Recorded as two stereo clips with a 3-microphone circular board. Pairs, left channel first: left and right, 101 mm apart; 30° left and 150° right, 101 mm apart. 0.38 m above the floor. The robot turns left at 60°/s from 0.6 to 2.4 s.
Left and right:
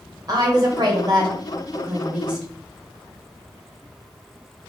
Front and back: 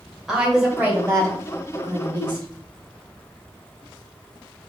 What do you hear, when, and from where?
0.3 s a woman speaking: 65° right, 1.2 m; by 2.5 s 175° right, 1.2 m